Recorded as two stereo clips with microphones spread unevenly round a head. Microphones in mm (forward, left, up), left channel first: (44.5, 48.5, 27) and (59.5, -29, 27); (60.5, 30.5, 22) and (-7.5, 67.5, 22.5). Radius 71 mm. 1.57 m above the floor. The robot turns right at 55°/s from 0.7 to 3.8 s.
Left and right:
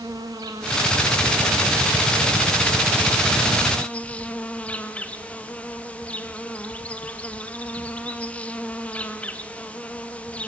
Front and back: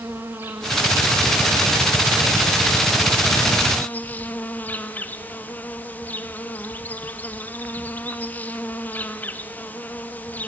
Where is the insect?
140° right, 1.2 m; by 10.5 s 35° left, 1.2 m.